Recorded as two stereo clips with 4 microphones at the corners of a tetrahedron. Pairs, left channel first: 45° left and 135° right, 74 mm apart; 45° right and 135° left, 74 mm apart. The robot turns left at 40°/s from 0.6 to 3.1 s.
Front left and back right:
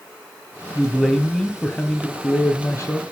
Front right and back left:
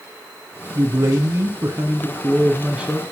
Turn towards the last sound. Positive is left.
turn(degrees=60)